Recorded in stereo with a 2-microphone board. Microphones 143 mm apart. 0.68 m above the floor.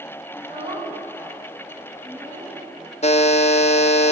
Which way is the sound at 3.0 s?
50° left (ahead or behind).